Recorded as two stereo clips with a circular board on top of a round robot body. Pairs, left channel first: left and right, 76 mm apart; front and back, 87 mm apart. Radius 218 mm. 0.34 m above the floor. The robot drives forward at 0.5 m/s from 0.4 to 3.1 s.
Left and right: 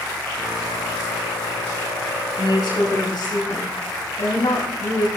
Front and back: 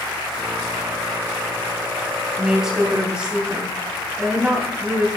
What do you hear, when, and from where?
2.4 s a woman speaking: 95° left, 4 m; by 5.1 s 100° left, 4 m